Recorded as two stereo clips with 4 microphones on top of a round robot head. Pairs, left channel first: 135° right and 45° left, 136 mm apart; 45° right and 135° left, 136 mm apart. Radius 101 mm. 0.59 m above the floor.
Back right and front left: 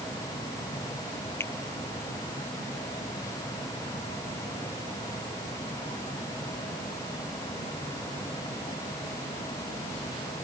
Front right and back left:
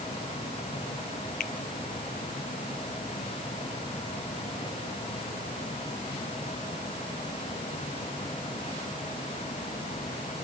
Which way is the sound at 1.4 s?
65° right.